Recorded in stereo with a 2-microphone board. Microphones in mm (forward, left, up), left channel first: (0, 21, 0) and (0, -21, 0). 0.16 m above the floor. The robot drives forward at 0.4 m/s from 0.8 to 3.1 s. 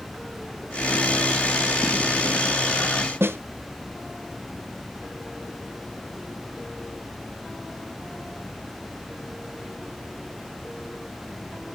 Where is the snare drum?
75° right (ahead or behind), 1.1 m.